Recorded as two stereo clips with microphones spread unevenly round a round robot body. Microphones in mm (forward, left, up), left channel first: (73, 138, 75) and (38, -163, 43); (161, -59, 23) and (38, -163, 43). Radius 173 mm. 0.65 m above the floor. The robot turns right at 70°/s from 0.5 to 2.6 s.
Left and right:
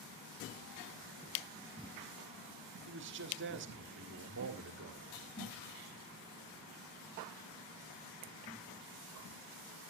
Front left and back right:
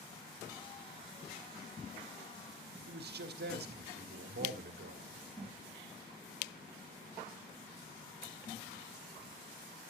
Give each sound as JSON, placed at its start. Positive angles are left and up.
{"t": 2.9, "sound": "a man speaking", "azimuth_deg": -145, "distance_m": 1.4}